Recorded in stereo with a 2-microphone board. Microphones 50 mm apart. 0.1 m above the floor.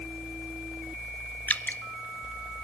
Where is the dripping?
35° left (ahead or behind), 1.0 m.